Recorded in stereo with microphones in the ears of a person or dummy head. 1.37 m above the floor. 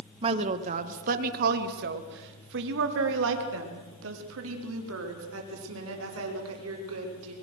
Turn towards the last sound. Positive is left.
turn(degrees=-85)